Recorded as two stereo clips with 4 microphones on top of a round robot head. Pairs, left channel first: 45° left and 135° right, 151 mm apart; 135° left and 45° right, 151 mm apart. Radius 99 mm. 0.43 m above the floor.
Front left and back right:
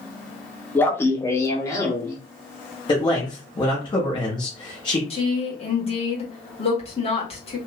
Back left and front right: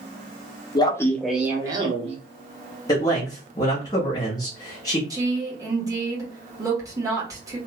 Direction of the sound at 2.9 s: 85° left.